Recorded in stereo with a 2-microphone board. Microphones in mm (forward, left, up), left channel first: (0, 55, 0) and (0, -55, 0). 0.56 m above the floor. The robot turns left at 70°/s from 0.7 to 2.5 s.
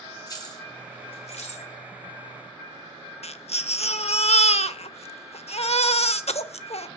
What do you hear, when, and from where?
0.3 s keys jangling: 35° left (ahead or behind), 1.8 m; by 1.7 s 70° left (ahead or behind), 1.8 m
3.2 s a baby crying: 70° left (ahead or behind), 0.6 m